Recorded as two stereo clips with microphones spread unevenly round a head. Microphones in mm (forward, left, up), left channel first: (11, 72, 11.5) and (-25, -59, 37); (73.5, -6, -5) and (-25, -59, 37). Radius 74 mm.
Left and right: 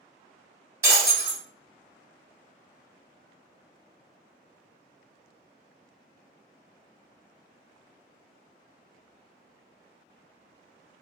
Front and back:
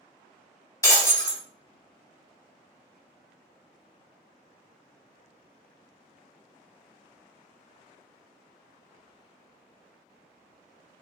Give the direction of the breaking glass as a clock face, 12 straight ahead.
1 o'clock.